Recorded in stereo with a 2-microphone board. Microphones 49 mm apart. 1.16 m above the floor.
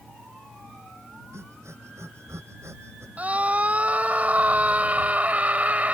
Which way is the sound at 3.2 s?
30° right (ahead or behind).